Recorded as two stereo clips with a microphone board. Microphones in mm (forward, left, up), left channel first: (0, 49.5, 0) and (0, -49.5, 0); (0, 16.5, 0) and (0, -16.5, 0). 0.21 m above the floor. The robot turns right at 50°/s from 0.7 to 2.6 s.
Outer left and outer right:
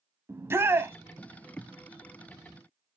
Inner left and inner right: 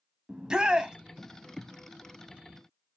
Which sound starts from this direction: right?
A shout, at 0.3 s.